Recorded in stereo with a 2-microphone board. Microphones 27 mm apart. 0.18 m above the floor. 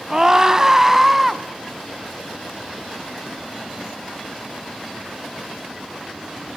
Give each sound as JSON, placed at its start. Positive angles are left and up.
{"t": 0.1, "sound": "a scream", "side_deg": -20, "distance_m": 1.0}